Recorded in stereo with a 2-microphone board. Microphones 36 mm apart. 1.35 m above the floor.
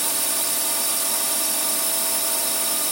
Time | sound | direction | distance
0.0 | a drone | centre (ahead or behind) | ?